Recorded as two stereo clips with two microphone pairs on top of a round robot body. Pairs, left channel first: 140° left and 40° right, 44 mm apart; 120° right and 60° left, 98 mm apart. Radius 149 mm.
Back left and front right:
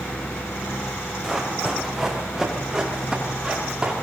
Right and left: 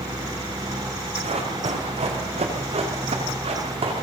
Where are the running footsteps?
50° left, 8.5 m; by 3.9 s 35° left, 9.5 m.